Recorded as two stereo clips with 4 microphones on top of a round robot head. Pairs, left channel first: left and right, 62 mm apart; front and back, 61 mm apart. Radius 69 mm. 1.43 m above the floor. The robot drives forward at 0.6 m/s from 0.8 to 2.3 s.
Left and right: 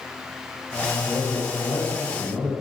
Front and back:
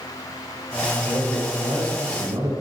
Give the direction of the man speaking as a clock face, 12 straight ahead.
7 o'clock.